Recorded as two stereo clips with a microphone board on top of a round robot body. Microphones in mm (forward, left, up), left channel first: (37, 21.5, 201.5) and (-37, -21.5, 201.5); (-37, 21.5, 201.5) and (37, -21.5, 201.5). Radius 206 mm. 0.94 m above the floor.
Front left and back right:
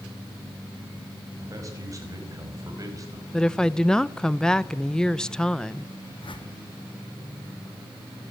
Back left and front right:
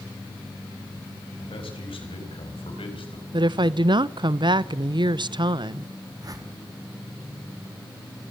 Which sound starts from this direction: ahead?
A whoosh, at 6.2 s.